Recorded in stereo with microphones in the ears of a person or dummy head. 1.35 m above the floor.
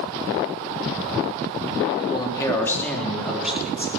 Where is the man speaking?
30° left (ahead or behind), 3 m; by 3.9 s 10° right (ahead or behind), 4.5 m.